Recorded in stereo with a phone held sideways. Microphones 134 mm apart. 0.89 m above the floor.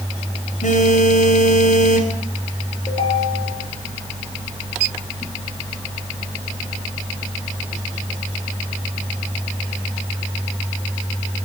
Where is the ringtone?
35° left (ahead or behind), 7 m.